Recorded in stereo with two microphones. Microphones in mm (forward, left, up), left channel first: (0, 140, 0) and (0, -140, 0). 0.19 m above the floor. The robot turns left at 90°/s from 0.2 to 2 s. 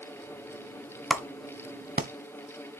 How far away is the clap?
About 0.9 m.